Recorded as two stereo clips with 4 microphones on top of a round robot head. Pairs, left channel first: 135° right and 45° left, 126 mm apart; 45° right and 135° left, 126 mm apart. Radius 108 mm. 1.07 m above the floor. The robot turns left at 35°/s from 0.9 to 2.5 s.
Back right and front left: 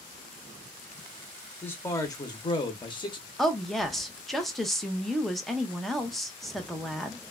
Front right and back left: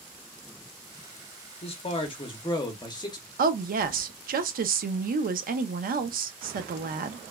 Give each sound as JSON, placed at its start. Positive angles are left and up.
{"t": 1.6, "sound": "a man speaking", "azimuth_deg": -60, "distance_m": 0.8}
{"t": 3.4, "sound": "a woman speaking", "azimuth_deg": 140, "distance_m": 0.5}